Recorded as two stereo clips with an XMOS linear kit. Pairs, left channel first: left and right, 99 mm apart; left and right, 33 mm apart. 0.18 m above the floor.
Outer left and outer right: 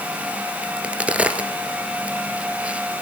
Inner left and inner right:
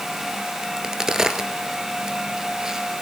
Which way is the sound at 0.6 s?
15° right (ahead or behind).